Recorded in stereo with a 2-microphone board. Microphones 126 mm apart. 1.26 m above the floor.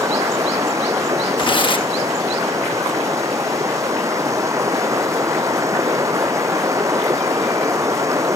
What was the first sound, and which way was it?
Running water, 25° right (ahead or behind).